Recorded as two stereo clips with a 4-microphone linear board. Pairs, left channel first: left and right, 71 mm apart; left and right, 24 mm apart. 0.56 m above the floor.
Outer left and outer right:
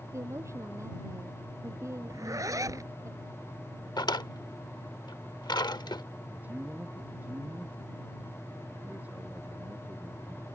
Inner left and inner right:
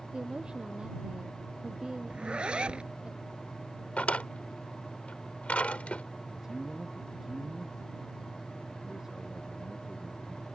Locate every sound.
0.1 s a woman speaking: 45° right (ahead or behind)
2.1 s a zipper: 50° right (ahead or behind)
4.0 s a drawer: 80° left
6.3 s a man speaking: 20° right (ahead or behind)